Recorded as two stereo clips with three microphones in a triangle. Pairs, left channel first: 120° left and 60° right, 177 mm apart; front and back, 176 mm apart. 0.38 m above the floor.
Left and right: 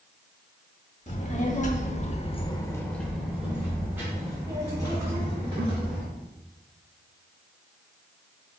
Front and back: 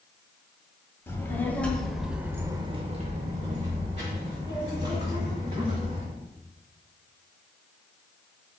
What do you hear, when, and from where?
1.1 s a child speaking: 75° left, 1.1 m; by 6.0 s 125° right, 2.5 m